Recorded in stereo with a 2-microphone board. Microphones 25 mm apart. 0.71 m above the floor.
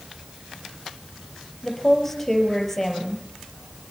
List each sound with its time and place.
1.6 s a woman speaking: 10° left (ahead or behind), 5 m